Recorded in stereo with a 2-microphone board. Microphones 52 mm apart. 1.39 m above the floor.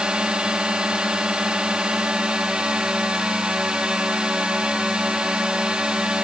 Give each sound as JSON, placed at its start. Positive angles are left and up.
{"t": 0.0, "sound": "a drone", "side_deg": -15}